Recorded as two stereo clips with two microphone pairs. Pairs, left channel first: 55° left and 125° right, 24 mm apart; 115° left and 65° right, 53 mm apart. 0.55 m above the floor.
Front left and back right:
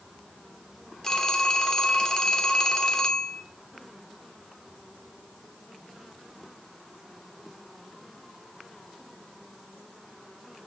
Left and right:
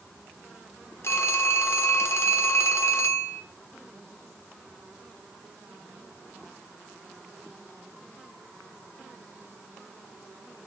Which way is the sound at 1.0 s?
115° left.